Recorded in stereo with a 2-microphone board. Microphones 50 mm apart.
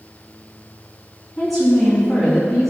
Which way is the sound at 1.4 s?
Centre (ahead or behind).